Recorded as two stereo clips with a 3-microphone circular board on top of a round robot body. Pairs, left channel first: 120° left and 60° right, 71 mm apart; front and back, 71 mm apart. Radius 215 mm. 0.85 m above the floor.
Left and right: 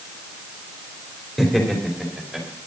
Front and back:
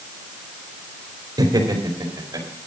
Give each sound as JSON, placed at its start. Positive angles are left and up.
{"t": 1.4, "sound": "laughter", "azimuth_deg": -150, "distance_m": 3.5}